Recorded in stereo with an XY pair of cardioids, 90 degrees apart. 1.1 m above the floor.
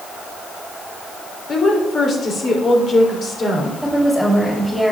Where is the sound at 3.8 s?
5° left, 6 m.